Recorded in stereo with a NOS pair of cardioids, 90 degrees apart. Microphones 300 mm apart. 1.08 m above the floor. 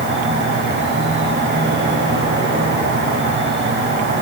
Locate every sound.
0.0 s an insect: 40° right, 3.5 m